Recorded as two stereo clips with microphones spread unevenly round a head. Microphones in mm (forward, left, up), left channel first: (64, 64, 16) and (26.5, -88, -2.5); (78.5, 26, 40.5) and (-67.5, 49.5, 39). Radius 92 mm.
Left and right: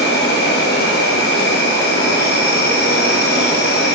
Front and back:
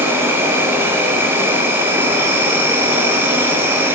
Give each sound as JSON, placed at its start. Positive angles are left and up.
{"t": 0.0, "sound": "an insect", "azimuth_deg": 100, "distance_m": 0.8}